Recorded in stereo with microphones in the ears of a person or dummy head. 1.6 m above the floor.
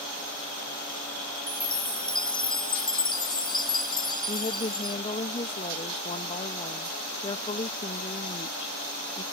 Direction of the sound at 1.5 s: 25° left (ahead or behind).